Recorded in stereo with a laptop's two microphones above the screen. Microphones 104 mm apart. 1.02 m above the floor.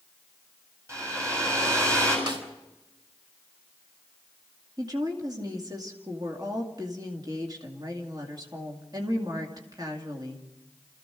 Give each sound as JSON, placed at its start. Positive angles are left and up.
{"t": 0.9, "sound": "a hair dryer", "side_deg": -30, "distance_m": 7.5}
{"t": 2.3, "sound": "a snare drum", "side_deg": -50, "distance_m": 4.0}
{"t": 4.8, "sound": "a woman speaking", "side_deg": -40, "distance_m": 2.5}